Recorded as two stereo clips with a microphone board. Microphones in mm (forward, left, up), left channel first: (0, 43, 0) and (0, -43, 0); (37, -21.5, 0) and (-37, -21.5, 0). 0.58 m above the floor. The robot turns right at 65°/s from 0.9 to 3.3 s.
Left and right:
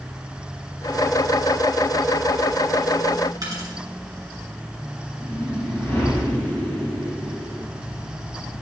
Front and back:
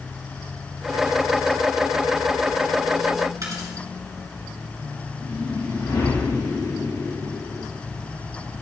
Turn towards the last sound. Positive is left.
turn(degrees=20)